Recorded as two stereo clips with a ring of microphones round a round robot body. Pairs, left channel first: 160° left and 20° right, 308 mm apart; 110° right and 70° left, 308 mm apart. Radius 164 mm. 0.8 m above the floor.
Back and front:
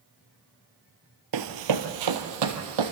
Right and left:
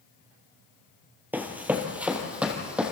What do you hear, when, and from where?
1.3 s running footsteps: 15° right, 1.3 m; by 2.9 s 20° right, 2.5 m